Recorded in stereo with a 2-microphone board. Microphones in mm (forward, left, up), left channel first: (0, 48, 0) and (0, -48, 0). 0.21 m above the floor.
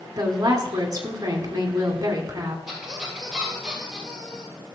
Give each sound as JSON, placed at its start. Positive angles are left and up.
{"t": 0.2, "sound": "a woman speaking", "side_deg": -40, "distance_m": 1.8}
{"t": 2.7, "sound": "a squeak", "side_deg": -5, "distance_m": 4.0}